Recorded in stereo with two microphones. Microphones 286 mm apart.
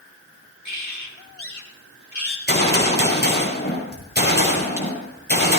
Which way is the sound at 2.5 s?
35° left (ahead or behind).